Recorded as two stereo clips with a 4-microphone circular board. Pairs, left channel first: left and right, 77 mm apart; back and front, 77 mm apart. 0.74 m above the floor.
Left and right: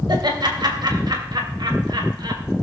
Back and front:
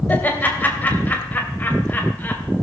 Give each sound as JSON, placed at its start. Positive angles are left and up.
{"t": 0.1, "sound": "laughter", "azimuth_deg": -115, "distance_m": 3.0}